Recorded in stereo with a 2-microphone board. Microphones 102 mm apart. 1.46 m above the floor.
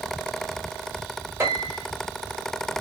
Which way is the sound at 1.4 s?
30° right (ahead or behind).